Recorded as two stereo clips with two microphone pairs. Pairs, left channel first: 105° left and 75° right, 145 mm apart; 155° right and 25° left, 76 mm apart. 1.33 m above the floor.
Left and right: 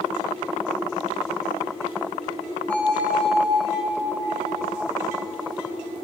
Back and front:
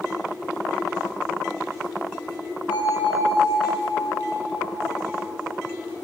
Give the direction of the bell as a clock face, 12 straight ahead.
6 o'clock.